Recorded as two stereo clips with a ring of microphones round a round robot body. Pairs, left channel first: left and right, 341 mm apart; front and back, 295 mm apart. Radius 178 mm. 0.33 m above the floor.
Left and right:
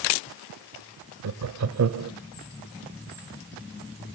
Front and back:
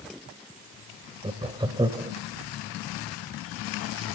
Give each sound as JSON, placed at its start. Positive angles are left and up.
{"t": 1.2, "sound": "laughter", "azimuth_deg": -110, "distance_m": 1.2}